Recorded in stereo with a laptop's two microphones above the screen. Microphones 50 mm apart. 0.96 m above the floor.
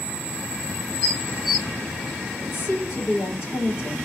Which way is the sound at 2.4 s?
45° left (ahead or behind).